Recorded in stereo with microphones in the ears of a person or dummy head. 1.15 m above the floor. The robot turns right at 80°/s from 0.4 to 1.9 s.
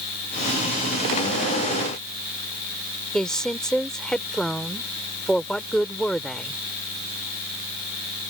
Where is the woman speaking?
5° left (ahead or behind).